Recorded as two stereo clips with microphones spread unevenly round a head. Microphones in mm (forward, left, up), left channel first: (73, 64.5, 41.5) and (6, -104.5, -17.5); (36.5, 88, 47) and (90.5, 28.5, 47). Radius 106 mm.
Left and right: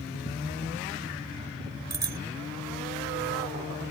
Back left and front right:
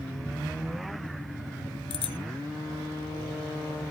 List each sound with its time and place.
1.9 s a bicycle bell: 170° left